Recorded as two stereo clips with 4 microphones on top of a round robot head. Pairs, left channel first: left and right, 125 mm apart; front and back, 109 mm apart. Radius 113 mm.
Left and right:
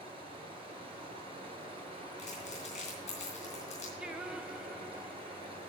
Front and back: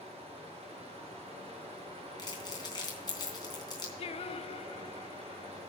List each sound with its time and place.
0.0 s running water: 135° right, 3 m
2.2 s crumpling: 50° left, 3 m
4.0 s singing: 10° right, 0.7 m